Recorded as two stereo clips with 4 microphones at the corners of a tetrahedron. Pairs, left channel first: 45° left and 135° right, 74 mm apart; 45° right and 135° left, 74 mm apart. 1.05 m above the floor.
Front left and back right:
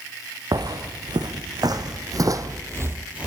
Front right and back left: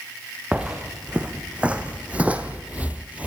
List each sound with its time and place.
0.5 s footsteps: 150° right, 4 m; by 3.3 s 170° left, 1.1 m